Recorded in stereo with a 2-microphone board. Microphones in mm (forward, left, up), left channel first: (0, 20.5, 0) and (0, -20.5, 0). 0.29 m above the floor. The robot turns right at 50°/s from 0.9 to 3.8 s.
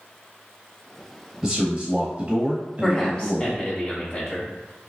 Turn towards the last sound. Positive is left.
turn(degrees=70)